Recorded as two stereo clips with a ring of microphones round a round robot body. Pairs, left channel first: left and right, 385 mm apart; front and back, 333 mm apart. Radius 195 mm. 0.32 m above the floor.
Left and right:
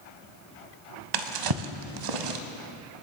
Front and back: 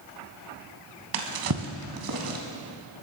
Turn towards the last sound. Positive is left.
turn(degrees=-125)